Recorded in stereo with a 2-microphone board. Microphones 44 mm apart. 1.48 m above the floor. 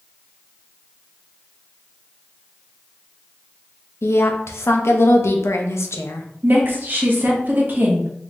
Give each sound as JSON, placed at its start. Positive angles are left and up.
{"t": 4.0, "sound": "a woman speaking", "side_deg": 85, "distance_m": 0.6}
{"t": 6.4, "sound": "a woman speaking", "side_deg": -50, "distance_m": 0.8}